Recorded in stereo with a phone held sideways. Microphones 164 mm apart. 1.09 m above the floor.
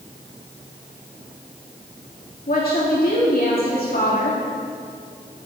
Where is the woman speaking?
65° left (ahead or behind), 2.5 m.